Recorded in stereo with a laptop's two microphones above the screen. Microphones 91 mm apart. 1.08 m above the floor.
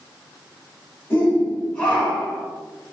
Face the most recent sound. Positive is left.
turn(degrees=-5)  # may be behind; listen again after turning